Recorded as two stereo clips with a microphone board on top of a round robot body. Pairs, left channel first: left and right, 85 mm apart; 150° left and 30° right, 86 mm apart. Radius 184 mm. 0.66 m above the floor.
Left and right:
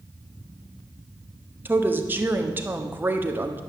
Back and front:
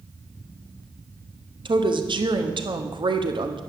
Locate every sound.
1.6 s a woman speaking: 25° right, 1.7 m